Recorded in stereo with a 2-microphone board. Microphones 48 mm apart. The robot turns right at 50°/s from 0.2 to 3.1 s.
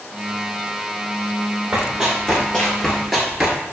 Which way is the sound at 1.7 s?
20° right (ahead or behind).